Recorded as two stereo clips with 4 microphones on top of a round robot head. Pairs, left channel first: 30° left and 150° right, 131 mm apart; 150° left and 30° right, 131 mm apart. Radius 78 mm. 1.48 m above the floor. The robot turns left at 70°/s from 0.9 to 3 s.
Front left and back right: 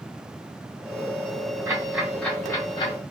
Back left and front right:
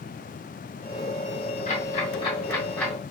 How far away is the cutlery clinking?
I don't hear cutlery clinking.